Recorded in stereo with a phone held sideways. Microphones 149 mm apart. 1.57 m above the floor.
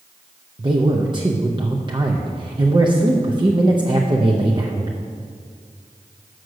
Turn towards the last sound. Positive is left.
turn(degrees=-30)  # may be behind; listen again after turning